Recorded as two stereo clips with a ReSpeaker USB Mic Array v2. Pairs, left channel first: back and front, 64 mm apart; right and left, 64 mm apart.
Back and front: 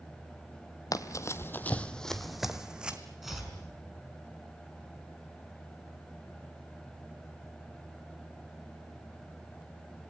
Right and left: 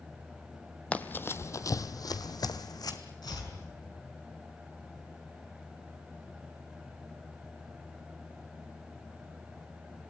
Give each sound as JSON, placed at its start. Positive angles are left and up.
{"t": 0.9, "sound": "running footsteps", "azimuth_deg": -160, "distance_m": 1.0}
{"t": 3.2, "sound": "chopping", "azimuth_deg": -85, "distance_m": 5.5}